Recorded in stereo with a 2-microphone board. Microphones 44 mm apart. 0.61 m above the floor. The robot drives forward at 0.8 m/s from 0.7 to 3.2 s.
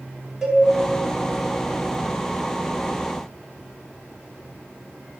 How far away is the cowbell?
About 1.6 m.